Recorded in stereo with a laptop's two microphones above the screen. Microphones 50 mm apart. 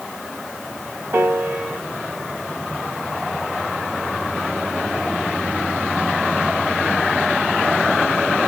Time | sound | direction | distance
1.1 | a piano | 55° right (ahead or behind) | 0.9 m